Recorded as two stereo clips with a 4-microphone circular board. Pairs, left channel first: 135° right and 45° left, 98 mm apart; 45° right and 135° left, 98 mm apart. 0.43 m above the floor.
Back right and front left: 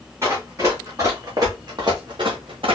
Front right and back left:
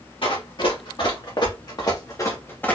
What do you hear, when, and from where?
0.2 s running footsteps: 15° right, 2.5 m; by 2.8 s 30° left, 1.1 m